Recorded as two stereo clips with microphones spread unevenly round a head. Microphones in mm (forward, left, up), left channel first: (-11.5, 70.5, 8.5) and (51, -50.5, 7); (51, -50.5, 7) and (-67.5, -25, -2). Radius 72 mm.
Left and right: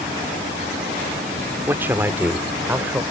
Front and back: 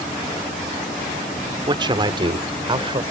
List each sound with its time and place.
1.7 s a man speaking: 140° right